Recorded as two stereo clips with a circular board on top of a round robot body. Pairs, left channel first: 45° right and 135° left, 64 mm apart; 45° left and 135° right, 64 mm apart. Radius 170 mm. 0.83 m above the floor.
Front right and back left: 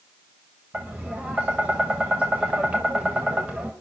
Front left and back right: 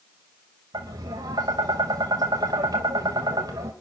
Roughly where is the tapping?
Behind right.